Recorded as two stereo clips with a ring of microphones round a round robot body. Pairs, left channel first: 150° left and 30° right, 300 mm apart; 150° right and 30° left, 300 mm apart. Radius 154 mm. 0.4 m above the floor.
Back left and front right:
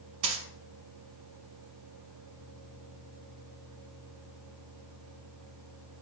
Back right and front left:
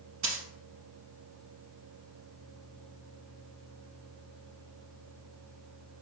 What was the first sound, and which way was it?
A dropped coin, 25° right.